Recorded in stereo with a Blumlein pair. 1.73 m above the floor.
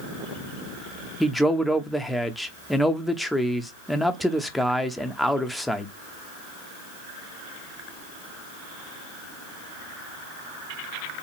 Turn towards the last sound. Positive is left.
turn(degrees=0)